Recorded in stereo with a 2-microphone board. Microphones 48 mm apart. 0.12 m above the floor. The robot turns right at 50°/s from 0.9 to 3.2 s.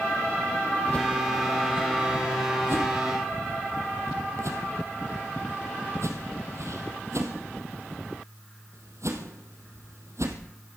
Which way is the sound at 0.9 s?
25° left (ahead or behind).